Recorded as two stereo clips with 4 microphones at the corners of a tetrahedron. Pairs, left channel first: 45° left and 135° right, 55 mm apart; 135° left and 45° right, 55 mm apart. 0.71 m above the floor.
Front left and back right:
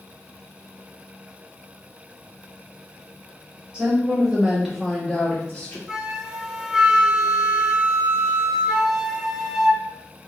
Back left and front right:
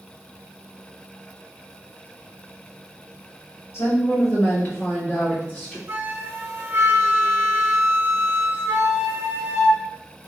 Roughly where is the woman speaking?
Behind.